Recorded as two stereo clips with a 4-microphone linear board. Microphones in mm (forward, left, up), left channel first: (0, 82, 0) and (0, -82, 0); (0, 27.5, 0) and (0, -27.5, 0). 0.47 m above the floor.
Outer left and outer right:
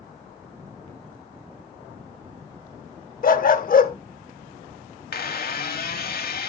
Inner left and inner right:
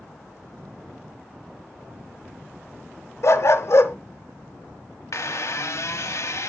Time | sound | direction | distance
3.2 | a dog barking | 60° left (ahead or behind) | 0.7 m
5.1 | a squeak | 70° left (ahead or behind) | 0.7 m